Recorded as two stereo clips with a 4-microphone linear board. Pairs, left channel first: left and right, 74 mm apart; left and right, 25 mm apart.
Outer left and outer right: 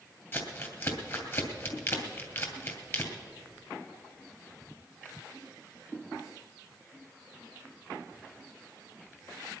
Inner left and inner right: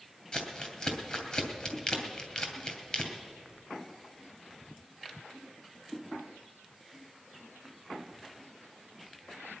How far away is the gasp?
No gasp in this recording.